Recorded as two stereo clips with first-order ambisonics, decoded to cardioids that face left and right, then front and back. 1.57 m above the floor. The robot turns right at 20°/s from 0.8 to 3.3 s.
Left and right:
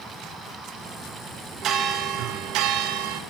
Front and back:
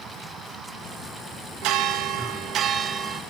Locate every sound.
1.6 s a bell: 145° right, 2.5 m; by 3.2 s 110° right, 2.5 m